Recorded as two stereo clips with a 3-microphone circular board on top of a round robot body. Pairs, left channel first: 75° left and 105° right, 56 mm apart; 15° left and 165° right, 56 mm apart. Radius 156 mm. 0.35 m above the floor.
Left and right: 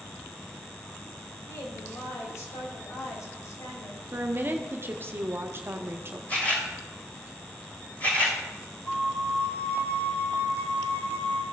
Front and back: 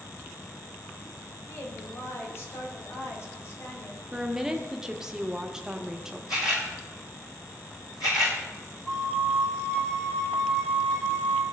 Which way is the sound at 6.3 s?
15° left.